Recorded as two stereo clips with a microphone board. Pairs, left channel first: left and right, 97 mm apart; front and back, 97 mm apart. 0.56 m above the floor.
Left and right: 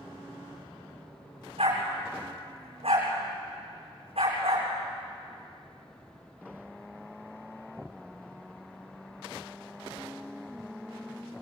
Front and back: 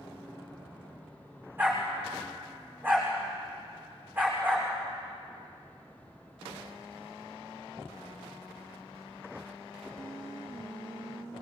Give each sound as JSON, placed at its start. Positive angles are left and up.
{"t": 1.6, "sound": "a dog barking", "azimuth_deg": -105, "distance_m": 8.5}